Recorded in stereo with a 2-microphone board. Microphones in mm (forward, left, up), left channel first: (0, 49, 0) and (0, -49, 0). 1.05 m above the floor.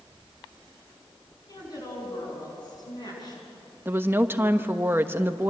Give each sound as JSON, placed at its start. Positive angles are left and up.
{"t": 1.5, "sound": "a woman speaking", "side_deg": 40, "distance_m": 9.5}
{"t": 3.9, "sound": "a woman speaking", "side_deg": -20, "distance_m": 1.2}